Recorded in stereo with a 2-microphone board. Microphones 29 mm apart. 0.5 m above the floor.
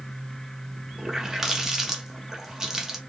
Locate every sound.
1.0 s a running tap: 15° right (ahead or behind), 0.7 m